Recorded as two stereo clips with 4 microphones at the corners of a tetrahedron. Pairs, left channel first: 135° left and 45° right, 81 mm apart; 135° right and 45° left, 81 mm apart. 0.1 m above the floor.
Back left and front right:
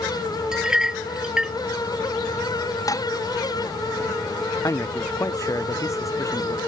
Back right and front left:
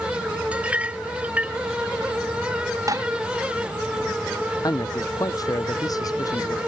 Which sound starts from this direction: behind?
A man speaking, at 4.6 s.